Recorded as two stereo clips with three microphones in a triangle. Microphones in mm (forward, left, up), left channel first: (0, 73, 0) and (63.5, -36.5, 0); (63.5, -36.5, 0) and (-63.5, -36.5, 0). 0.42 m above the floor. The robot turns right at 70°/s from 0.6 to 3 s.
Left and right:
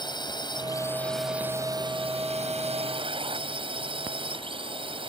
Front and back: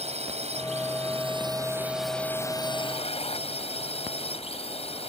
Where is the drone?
170° left; by 5.1 s 25° right.